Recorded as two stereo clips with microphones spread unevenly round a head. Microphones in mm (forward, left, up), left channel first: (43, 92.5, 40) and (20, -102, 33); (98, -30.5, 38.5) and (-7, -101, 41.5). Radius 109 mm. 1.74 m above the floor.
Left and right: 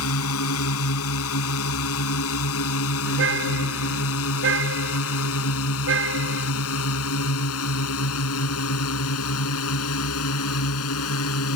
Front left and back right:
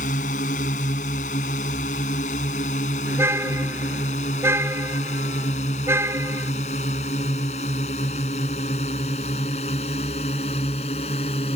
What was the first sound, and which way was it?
A drone, 80° left.